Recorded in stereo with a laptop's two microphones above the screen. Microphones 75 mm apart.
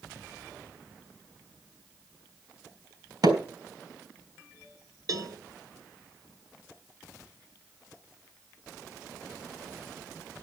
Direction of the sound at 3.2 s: 65° right (ahead or behind).